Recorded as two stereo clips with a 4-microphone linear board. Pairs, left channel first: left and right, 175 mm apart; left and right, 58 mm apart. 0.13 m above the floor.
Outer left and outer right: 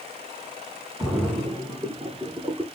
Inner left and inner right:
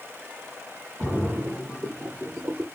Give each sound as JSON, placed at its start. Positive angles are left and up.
{"t": 1.0, "sound": "a splash", "side_deg": -5, "distance_m": 1.0}